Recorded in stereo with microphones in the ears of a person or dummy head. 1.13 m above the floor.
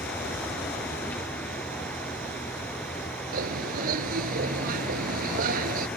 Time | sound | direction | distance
0.0 | a vehicle | 5° left (ahead or behind) | ?
3.3 | a bird | 55° right (ahead or behind) | ?